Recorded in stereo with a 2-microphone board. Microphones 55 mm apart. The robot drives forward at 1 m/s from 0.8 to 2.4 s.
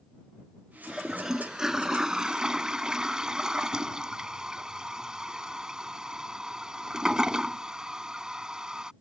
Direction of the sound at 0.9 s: 5° right (ahead or behind).